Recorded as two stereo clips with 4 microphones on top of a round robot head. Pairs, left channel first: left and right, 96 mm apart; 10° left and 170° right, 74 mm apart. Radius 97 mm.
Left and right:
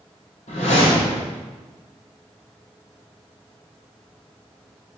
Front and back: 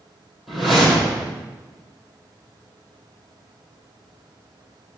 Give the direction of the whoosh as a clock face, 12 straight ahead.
9 o'clock.